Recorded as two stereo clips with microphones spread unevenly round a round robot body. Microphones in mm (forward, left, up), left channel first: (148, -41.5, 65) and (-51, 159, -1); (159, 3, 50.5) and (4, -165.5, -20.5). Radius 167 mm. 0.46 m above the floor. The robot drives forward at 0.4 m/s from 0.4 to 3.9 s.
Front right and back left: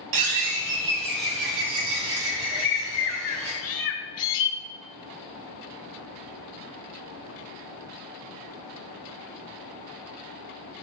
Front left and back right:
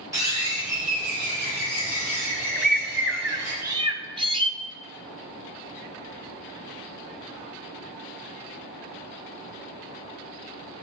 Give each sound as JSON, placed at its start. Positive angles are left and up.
{"t": 0.1, "sound": "a bird", "azimuth_deg": 150, "distance_m": 1.5}
{"t": 2.5, "sound": "a bird", "azimuth_deg": -50, "distance_m": 1.0}